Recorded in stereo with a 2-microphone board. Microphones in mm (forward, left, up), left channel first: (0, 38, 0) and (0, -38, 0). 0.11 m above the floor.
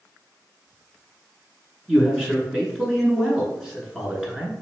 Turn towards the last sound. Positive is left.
turn(degrees=-10)  # may be behind; listen again after turning